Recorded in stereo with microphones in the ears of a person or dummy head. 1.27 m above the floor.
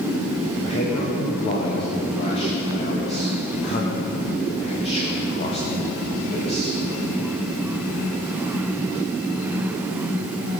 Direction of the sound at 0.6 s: 30° left (ahead or behind).